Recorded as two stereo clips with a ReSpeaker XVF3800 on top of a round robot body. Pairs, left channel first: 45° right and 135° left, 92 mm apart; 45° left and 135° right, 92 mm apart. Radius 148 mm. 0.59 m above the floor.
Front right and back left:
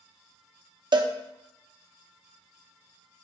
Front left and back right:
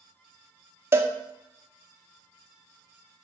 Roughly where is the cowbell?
Behind.